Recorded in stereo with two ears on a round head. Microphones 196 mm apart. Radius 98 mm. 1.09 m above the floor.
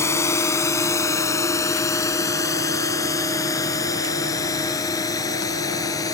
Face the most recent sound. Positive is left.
turn(degrees=15)  # may be behind; listen again after turning